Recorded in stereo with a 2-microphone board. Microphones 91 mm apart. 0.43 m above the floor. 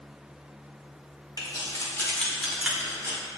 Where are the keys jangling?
50° left (ahead or behind), 1.1 m; by 3.2 s 30° right (ahead or behind), 1.1 m.